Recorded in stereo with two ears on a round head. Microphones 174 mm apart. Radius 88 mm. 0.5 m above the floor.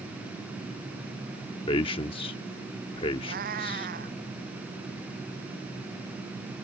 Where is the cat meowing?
45° right (ahead or behind).